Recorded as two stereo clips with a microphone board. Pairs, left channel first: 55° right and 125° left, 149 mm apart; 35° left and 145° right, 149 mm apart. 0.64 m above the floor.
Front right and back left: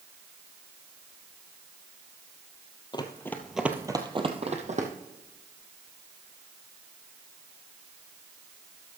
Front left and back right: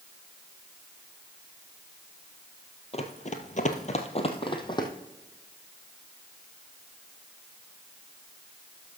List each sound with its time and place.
2.9 s running footsteps: straight ahead, 1.2 m; by 4.9 s 95° left, 1.8 m